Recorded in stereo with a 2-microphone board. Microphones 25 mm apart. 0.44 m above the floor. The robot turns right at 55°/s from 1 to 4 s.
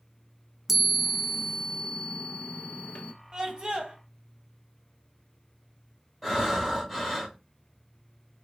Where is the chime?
5° right, 0.5 m; by 3.1 s 110° left, 0.5 m.